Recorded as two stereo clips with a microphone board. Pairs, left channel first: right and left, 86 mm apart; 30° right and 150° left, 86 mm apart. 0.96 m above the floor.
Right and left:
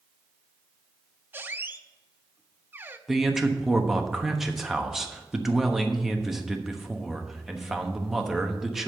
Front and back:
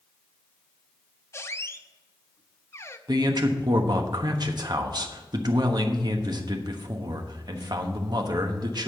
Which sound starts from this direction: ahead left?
A squeak, at 1.3 s.